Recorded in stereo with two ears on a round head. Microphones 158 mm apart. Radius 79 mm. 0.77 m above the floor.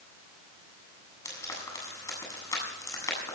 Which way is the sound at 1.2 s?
20° left (ahead or behind).